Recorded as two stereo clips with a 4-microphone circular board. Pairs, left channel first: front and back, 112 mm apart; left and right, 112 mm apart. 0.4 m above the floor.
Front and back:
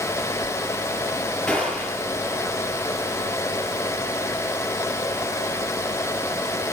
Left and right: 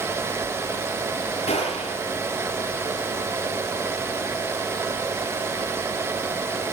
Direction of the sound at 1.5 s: 80° left.